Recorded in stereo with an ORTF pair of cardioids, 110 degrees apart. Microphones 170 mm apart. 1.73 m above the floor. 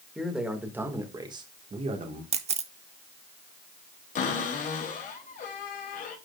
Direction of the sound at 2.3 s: 35° right.